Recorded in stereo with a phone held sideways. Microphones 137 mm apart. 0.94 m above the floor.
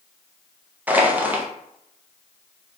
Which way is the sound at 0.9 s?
10° right (ahead or behind).